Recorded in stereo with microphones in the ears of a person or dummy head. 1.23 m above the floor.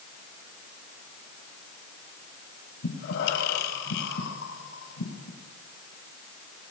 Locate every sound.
2.8 s breathing: 70° left (ahead or behind), 4 m